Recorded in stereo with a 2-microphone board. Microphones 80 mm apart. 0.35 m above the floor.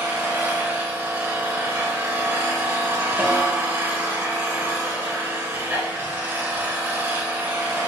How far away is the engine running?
About 1.0 m.